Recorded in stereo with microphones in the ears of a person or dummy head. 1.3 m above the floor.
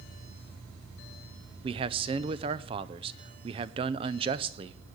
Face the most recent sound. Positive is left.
turn(degrees=-25)  # may be behind; listen again after turning